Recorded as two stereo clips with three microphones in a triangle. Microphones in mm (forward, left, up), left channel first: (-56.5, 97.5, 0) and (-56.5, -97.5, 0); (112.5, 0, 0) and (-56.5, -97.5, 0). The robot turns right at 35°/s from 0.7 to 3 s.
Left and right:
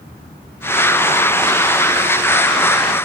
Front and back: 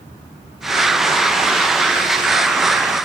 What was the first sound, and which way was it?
Only background noise.